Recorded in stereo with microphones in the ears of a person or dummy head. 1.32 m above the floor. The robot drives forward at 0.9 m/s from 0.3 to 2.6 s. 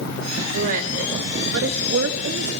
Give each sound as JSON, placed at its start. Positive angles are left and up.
{"t": 0.5, "sound": "a woman speaking", "side_deg": -45, "distance_m": 3.0}